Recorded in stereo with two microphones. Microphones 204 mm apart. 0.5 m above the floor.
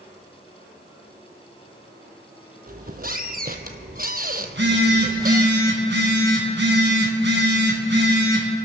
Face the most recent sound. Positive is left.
turn(degrees=-65)  # may be behind; listen again after turning